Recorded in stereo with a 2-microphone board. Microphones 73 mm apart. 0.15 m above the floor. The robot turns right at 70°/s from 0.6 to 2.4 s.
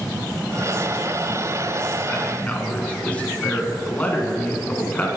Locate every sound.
2.1 s a man speaking: 25° left (ahead or behind), 1.4 m; by 5.1 s 20° left (ahead or behind), 1.4 m